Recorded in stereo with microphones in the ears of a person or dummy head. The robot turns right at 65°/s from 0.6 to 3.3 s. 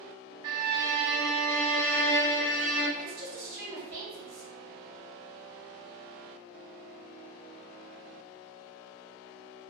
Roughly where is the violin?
Ahead right.